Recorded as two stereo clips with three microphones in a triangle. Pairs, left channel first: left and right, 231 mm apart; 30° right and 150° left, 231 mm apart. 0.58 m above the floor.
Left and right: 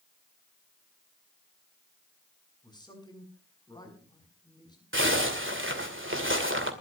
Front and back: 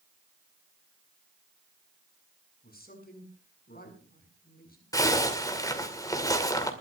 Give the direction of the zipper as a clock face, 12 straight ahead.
3 o'clock.